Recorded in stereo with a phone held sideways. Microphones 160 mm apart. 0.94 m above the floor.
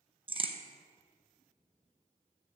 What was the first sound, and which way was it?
A crack, 35° right (ahead or behind).